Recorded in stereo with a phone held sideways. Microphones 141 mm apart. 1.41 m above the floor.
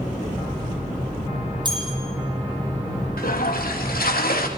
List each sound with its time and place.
1.6 s a bell: 30° right (ahead or behind), 9.5 m
3.2 s a toilet flushing: 85° left, 3 m